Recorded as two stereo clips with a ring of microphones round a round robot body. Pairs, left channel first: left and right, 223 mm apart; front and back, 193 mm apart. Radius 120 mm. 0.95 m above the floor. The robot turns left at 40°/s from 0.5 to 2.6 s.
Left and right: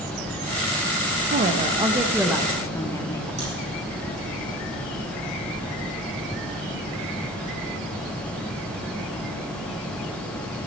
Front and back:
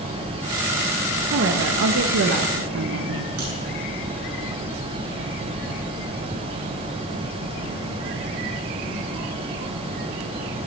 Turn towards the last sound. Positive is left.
turn(degrees=-155)